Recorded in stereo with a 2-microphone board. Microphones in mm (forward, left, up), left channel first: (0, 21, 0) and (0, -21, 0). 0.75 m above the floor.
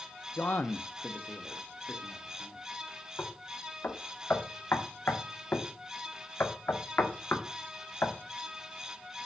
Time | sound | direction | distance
0.4 | a man speaking | 50° left (ahead or behind) | 0.5 m
3.2 | knocking | 65° left (ahead or behind) | 1.5 m